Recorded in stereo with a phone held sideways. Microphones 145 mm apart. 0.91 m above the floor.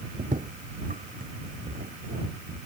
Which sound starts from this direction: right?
Footsteps, at 0.2 s.